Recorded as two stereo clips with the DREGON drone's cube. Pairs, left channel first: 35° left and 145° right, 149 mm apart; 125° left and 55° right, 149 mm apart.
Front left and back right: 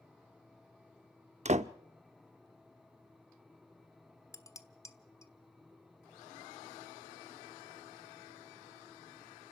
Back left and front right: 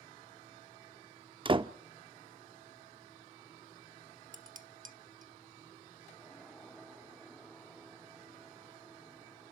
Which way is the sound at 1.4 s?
110° right.